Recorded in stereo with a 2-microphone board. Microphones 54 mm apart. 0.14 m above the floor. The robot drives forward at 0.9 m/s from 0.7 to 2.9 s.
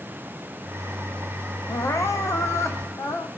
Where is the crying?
75° left (ahead or behind), 2 m; by 3.3 s 70° left (ahead or behind), 2 m.